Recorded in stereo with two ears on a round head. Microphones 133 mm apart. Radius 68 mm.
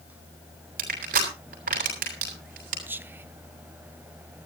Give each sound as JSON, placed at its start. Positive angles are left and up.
{"t": 0.8, "sound": "crushing", "side_deg": -60, "distance_m": 7.0}
{"t": 2.9, "sound": "whispering", "side_deg": -10, "distance_m": 0.7}